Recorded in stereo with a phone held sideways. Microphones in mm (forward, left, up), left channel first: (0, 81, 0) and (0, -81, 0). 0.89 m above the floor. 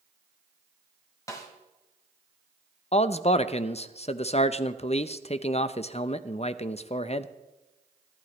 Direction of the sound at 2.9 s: 40° left (ahead or behind).